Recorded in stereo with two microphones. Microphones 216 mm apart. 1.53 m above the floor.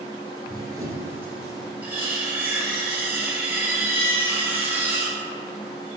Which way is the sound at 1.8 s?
10° right (ahead or behind).